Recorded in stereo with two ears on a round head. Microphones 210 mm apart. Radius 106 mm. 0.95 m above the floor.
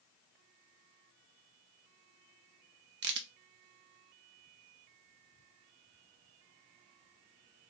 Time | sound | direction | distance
3.0 | a crack | 45° right (ahead or behind) | 0.6 m